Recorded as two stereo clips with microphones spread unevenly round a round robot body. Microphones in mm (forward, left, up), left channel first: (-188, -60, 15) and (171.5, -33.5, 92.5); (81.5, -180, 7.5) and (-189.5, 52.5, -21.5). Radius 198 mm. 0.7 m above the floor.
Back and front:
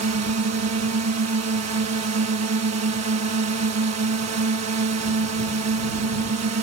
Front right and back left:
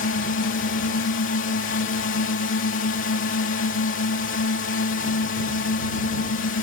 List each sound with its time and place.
0.0 s a drone: 10° right